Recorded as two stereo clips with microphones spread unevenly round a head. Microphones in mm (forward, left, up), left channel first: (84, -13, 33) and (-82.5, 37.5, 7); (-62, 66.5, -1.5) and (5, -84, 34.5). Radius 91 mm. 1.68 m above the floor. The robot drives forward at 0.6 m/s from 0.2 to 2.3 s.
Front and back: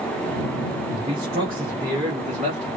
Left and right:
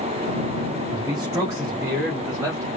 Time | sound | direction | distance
0.9 | a man speaking | 135° right | 2.5 m